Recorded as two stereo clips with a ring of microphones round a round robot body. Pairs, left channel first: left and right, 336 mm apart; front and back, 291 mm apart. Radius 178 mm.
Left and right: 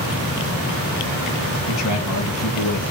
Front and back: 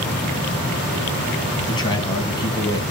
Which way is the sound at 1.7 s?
75° left.